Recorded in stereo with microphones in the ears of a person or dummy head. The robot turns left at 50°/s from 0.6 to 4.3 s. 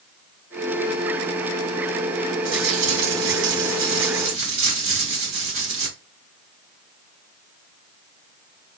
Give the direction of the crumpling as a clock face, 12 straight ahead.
1 o'clock.